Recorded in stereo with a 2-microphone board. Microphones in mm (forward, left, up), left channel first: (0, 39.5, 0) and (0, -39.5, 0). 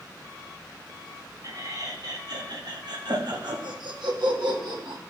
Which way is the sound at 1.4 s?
50° right (ahead or behind).